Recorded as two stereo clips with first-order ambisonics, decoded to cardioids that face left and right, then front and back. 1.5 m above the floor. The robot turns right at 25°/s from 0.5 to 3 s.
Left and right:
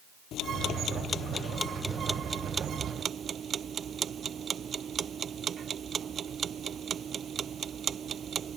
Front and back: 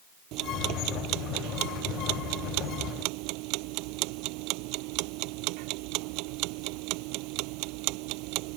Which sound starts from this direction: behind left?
Ticking, at 0.3 s.